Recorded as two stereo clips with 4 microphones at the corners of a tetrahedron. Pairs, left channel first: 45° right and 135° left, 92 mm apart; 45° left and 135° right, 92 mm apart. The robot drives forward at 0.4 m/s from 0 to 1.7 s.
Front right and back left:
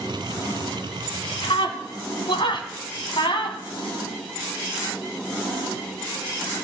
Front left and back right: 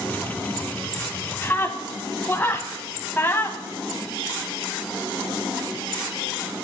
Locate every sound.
1.4 s a scream: 20° right, 3 m